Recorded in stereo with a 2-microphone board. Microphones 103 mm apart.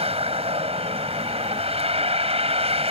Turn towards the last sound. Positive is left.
turn(degrees=-80)